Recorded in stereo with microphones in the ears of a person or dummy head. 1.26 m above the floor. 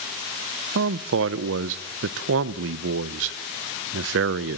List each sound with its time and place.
0.8 s a man speaking: 70° right (ahead or behind), 0.5 m